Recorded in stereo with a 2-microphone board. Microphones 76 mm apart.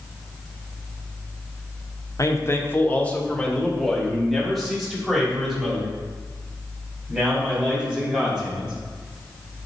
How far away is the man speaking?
About 0.8 m.